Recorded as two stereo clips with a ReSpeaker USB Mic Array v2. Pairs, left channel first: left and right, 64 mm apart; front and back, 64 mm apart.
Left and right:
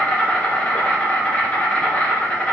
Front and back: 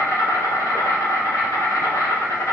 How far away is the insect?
About 1.2 m.